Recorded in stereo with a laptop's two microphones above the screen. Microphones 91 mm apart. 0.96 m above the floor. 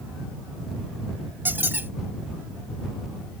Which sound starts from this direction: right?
A squeak, at 1.4 s.